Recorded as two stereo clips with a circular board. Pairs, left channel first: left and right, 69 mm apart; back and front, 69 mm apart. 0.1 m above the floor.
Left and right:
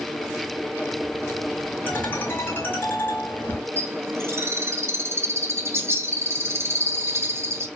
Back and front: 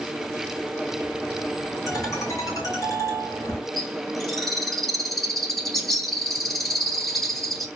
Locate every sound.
1.9 s a ringtone: 150° left, 3 m
3.8 s a bird: 95° right, 1.5 m